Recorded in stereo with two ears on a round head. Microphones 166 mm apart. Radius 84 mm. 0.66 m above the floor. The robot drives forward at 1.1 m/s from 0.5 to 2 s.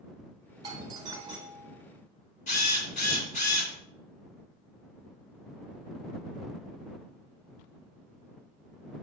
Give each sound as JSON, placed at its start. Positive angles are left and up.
{"t": 0.6, "sound": "a doorbell", "side_deg": -25, "distance_m": 1.7}
{"t": 2.5, "sound": "a drill", "side_deg": 40, "distance_m": 2.5}